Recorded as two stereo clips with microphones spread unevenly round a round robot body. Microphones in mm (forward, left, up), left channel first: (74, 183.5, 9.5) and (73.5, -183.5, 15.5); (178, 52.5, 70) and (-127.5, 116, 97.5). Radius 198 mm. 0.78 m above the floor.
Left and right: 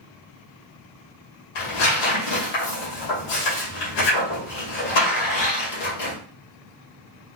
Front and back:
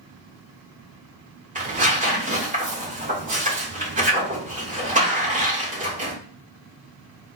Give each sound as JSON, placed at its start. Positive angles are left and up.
{"t": 1.6, "sound": "tearing paper", "azimuth_deg": 100, "distance_m": 2.5}